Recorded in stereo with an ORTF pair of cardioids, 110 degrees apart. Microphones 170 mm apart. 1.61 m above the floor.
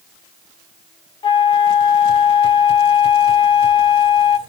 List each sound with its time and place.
1.2 s a flute: 30° left, 1.2 m